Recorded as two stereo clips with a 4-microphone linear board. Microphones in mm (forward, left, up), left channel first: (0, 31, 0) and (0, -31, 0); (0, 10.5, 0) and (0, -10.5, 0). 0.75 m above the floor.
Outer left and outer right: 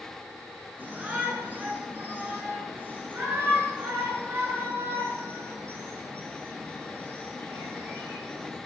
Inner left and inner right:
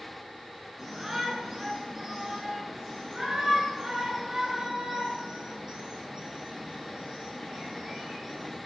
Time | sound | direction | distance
0.8 | a shout | 25° right (ahead or behind) | 9.5 m